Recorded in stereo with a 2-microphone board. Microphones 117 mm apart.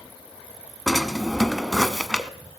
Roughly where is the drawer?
Centre.